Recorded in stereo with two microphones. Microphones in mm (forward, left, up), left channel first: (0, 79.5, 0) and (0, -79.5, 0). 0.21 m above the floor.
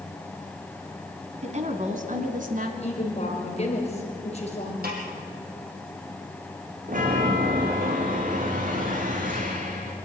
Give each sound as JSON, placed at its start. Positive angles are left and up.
{"t": 1.4, "sound": "a woman speaking", "side_deg": -45, "distance_m": 1.9}
{"t": 2.8, "sound": "a woman speaking", "side_deg": 40, "distance_m": 4.0}
{"t": 4.8, "sound": "a snare drum", "side_deg": -75, "distance_m": 4.0}
{"t": 6.9, "sound": "a chime", "side_deg": -55, "distance_m": 3.0}